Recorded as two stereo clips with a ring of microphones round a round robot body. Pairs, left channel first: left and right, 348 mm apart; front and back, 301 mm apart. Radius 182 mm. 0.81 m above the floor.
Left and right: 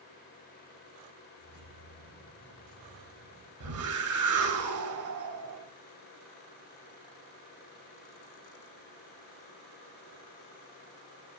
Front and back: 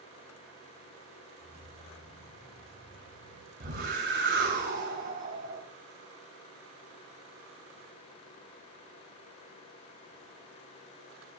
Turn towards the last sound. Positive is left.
turn(degrees=-125)